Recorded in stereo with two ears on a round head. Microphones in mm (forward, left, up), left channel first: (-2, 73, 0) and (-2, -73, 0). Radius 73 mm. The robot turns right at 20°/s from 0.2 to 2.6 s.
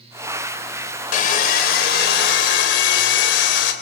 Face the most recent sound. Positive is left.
turn(degrees=80)